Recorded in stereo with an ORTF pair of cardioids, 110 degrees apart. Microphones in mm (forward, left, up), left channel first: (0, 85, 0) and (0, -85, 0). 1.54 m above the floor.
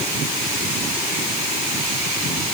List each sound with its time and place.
Only background noise.